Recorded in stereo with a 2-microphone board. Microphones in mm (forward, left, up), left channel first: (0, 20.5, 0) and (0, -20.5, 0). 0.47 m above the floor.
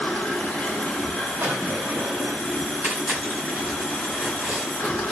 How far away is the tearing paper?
About 2 m.